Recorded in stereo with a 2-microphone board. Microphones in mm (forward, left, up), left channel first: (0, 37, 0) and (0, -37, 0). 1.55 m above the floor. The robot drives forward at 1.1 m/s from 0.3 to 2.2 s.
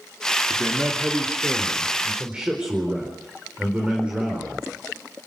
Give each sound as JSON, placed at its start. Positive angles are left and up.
{"t": 0.5, "sound": "a man speaking", "side_deg": -25, "distance_m": 3.0}